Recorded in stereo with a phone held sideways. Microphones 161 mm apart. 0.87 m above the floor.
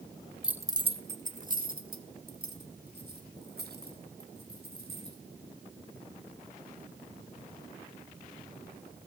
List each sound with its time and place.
0.4 s keys jangling: 5° right (ahead or behind), 0.9 m; by 5.2 s 85° right, 5.5 m